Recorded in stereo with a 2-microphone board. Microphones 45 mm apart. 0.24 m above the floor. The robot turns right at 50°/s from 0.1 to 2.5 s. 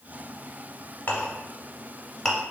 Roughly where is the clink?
Left.